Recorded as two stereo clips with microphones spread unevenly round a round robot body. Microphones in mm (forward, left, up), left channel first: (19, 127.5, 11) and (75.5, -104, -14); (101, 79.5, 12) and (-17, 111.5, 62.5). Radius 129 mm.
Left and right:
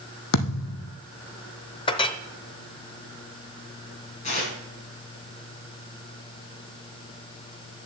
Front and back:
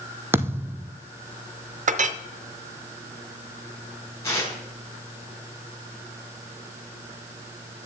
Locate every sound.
0.3 s a thud: 100° left, 1.4 m
1.9 s a clink: 170° left, 0.6 m
4.2 s tearing paper: 45° left, 4 m